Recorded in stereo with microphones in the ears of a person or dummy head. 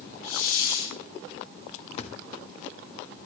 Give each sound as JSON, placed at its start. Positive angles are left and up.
{"t": 0.2, "sound": "a hiss", "side_deg": 85, "distance_m": 3.5}
{"t": 2.0, "sound": "a thud", "side_deg": 40, "distance_m": 1.1}